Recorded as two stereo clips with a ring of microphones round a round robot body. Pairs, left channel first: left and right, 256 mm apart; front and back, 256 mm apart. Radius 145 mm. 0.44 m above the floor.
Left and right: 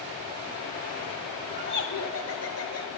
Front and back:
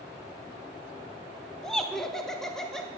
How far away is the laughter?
About 1.4 m.